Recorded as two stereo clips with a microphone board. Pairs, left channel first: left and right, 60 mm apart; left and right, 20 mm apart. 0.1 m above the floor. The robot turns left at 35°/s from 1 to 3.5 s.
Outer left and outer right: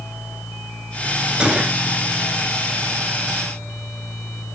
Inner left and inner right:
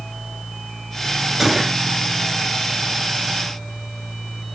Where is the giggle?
I don't hear a giggle.